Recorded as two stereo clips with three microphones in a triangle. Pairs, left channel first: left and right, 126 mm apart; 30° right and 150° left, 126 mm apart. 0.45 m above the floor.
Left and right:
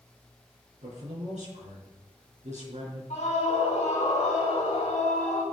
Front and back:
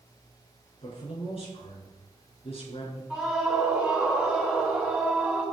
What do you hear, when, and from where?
0.8 s a man speaking: 70° right, 5 m
3.1 s a scream: 60° left, 3 m